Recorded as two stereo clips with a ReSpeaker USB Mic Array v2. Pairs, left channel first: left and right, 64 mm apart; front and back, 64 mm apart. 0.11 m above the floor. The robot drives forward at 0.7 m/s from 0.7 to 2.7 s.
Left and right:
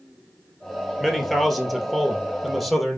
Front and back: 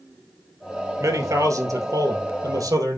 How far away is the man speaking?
About 2.0 m.